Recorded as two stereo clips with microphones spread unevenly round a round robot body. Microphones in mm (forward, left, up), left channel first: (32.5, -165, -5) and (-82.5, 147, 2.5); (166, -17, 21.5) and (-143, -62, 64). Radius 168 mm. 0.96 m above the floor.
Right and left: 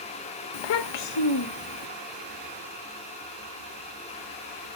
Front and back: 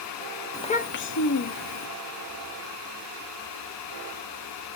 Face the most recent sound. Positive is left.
turn(degrees=-20)